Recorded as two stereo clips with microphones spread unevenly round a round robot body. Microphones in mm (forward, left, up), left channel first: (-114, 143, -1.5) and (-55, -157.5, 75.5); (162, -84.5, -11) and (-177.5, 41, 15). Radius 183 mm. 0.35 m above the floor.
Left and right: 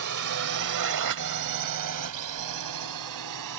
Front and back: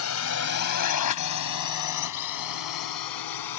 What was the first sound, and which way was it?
A drone, 50° right.